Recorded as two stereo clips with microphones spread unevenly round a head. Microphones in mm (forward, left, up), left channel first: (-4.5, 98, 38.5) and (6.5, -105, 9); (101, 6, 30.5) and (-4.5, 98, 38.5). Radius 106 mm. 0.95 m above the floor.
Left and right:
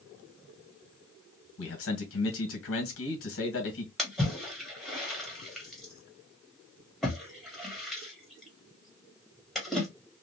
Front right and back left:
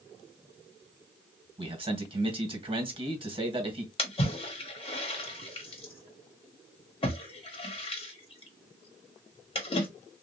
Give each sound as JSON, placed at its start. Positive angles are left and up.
{"t": 1.6, "sound": "a man speaking", "azimuth_deg": 90, "distance_m": 1.5}
{"t": 4.0, "sound": "a splash", "azimuth_deg": 0, "distance_m": 1.3}